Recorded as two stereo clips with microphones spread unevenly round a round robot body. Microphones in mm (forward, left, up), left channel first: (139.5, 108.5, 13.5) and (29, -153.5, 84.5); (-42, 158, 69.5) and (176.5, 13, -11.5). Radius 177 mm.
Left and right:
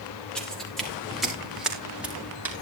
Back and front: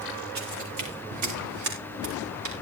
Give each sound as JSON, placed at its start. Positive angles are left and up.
{"t": 0.3, "sound": "footsteps", "azimuth_deg": -20, "distance_m": 7.0}